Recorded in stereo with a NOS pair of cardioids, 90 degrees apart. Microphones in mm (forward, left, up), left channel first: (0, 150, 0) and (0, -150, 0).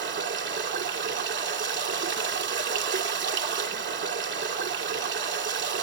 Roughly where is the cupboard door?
No cupboard door in this recording.